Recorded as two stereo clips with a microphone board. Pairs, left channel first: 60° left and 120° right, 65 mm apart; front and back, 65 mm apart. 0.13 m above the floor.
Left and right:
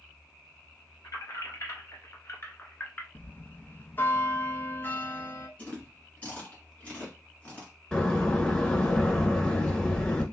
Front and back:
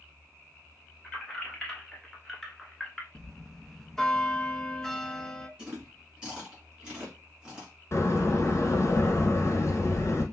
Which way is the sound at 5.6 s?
110° left.